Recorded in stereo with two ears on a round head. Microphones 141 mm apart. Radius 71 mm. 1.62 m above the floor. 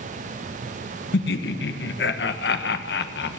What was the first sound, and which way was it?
Laughter, 75° left (ahead or behind).